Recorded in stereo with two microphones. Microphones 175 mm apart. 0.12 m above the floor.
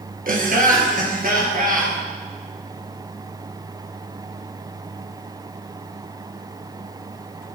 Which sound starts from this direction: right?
Laughter, at 0.3 s.